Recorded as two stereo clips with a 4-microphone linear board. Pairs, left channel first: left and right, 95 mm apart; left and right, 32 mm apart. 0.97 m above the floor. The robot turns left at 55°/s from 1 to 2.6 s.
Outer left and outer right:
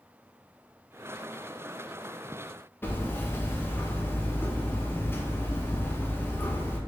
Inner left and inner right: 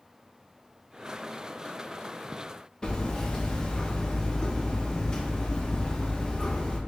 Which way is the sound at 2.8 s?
25° left (ahead or behind).